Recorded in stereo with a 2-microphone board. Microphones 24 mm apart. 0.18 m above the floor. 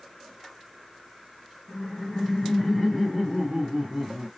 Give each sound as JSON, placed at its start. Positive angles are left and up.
{"t": 1.7, "sound": "laughter", "side_deg": 40, "distance_m": 1.6}